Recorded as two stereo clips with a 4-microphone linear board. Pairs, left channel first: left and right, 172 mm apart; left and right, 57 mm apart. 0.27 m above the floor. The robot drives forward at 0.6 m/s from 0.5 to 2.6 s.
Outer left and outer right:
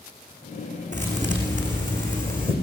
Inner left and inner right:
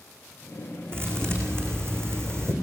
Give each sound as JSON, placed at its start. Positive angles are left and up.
{"t": 0.9, "sound": "a thud", "side_deg": -45, "distance_m": 6.0}